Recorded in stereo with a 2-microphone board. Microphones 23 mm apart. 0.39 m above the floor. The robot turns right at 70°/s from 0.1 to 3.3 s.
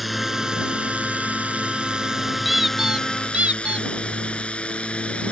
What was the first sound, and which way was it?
A drone, centre (ahead or behind).